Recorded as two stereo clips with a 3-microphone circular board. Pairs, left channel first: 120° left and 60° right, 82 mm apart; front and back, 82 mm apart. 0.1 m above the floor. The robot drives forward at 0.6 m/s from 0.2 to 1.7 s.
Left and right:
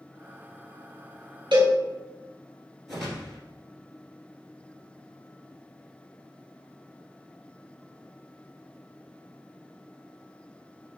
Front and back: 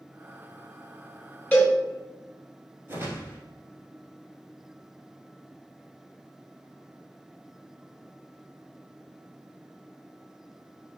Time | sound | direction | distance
1.5 | a cowbell | 75° right | 1.6 m
2.9 | a whoosh | 150° right | 1.5 m